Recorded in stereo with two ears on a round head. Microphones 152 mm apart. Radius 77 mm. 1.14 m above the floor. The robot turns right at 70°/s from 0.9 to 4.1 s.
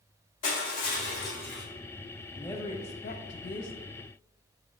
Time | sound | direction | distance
0.4 | crushing | 130° left | 2 m
2.3 | a woman speaking | straight ahead | 1.1 m